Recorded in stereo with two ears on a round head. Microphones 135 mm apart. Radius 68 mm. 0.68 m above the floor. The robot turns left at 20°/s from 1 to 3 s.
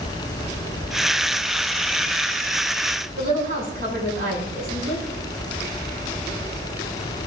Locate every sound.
3.2 s a woman speaking: 60° right (ahead or behind), 6 m